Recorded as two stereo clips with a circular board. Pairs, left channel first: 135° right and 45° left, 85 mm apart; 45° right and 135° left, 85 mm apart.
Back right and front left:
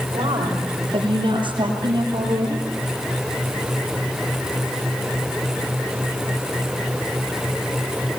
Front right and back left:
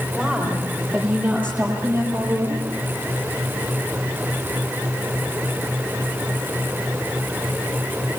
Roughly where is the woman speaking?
Ahead left.